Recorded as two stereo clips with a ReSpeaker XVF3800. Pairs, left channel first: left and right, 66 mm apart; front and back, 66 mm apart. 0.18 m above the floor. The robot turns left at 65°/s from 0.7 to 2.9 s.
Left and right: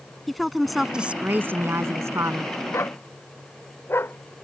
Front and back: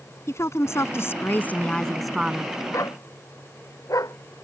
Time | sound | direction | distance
0.3 | a woman speaking | straight ahead | ?
2.7 | a dog barking | 45° left | ?